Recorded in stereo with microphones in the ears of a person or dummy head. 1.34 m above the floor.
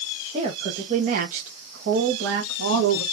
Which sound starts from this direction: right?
A woman speaking, at 0.3 s.